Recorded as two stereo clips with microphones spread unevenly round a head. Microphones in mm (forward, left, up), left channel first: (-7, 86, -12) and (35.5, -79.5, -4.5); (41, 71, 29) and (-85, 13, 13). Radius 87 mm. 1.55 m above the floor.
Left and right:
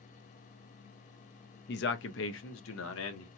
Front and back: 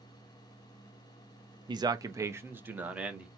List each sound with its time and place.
1.7 s a man speaking: 145° left, 0.9 m; by 3.3 s 120° left, 1.6 m